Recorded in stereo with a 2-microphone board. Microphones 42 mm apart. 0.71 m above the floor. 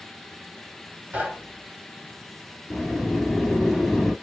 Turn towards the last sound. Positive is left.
turn(degrees=-5)  # may be behind; listen again after turning